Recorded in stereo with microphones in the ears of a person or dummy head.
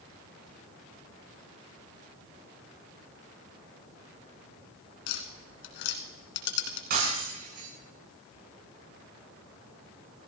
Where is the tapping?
70° left (ahead or behind), 2.5 m.